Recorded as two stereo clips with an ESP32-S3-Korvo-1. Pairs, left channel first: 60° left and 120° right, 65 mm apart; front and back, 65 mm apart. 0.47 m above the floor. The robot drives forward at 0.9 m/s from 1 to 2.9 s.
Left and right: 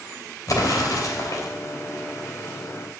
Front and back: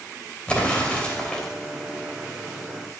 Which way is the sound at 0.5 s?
70° left.